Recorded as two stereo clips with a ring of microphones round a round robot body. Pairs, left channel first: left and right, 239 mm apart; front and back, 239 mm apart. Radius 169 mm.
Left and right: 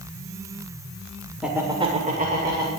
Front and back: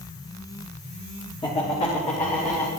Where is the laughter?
5° right, 1.3 m; by 2.7 s 55° right, 2 m.